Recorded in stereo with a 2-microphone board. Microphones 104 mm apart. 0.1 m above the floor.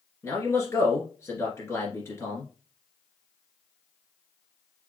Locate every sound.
0.2 s a man speaking: 25° left (ahead or behind), 1.9 m